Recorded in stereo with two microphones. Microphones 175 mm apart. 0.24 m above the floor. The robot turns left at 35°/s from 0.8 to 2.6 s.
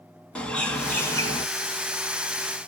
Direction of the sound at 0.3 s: 5° left (ahead or behind).